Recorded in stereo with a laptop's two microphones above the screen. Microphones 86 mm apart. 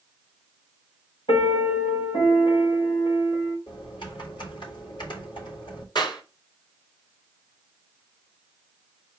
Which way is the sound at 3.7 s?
70° left (ahead or behind).